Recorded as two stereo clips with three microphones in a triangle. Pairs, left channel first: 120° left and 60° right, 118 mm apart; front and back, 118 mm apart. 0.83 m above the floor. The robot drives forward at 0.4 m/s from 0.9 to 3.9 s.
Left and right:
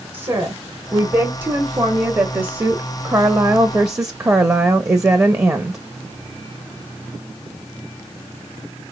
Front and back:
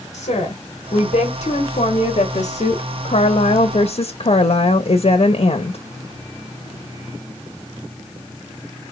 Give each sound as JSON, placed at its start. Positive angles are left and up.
{"t": 0.1, "sound": "a woman speaking", "azimuth_deg": 0, "distance_m": 1.7}